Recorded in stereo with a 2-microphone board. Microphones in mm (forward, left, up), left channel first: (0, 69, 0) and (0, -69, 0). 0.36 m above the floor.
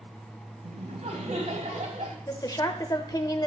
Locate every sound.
0.6 s laughter: 60° right (ahead or behind), 2.5 m
2.3 s a woman speaking: 30° left (ahead or behind), 0.9 m